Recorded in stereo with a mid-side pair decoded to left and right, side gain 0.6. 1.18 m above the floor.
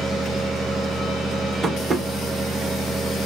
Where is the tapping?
20° right, 1.3 m.